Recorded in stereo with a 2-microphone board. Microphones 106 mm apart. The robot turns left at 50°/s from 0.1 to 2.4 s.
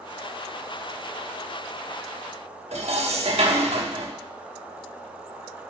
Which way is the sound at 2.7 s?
80° right.